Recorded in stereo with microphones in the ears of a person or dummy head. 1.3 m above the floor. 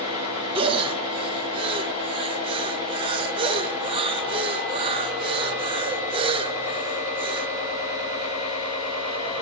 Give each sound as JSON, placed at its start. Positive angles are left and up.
{"t": 0.6, "sound": "breathing", "side_deg": -30, "distance_m": 0.6}